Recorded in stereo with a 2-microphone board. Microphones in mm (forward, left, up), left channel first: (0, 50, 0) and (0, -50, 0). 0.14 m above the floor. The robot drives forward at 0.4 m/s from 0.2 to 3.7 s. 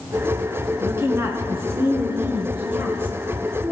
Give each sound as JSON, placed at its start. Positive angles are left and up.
{"t": 0.8, "sound": "a woman speaking", "side_deg": -25, "distance_m": 1.3}